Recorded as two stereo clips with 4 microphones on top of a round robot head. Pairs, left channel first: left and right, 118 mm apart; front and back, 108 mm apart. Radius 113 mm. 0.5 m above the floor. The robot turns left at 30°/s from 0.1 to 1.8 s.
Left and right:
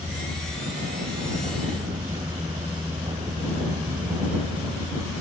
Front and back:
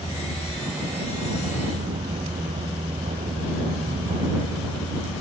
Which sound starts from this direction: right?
A vehicle, at 0.0 s.